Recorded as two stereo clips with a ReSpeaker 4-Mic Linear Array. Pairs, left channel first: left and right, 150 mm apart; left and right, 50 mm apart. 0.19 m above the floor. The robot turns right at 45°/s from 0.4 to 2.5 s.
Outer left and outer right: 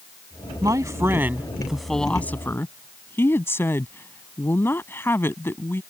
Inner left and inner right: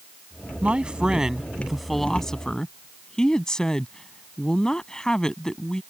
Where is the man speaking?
55° right; by 5.8 s 30° left.